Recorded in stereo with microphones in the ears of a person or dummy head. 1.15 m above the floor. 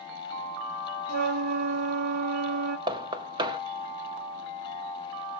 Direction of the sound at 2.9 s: 25° right (ahead or behind).